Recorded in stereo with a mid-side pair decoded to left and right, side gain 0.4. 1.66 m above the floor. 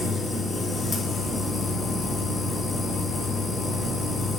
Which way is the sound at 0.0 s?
45° left.